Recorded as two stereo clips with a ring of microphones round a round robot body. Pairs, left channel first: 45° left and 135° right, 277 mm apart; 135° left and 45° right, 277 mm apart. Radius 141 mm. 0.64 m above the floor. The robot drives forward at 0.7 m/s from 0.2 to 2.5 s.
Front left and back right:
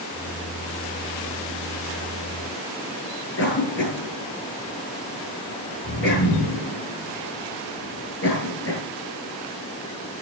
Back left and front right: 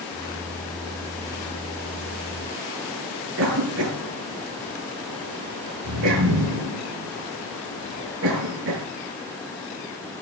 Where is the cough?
5° right, 6.5 m.